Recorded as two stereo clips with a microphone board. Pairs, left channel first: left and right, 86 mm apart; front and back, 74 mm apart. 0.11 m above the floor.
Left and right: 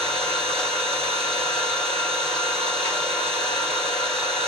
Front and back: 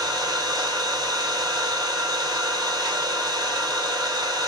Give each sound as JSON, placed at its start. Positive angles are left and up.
{"t": 0.0, "sound": "an engine running", "azimuth_deg": 175, "distance_m": 2.5}